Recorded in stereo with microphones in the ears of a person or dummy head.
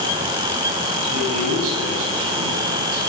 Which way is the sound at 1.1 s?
80° right.